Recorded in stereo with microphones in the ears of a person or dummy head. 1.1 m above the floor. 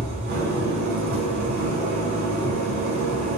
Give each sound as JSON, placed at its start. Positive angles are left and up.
{"t": 0.0, "sound": "an engine running", "side_deg": -50, "distance_m": 3.5}